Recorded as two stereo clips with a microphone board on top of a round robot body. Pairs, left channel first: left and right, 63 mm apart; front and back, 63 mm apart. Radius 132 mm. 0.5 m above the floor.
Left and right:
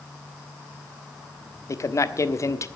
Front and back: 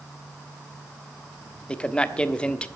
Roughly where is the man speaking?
Left.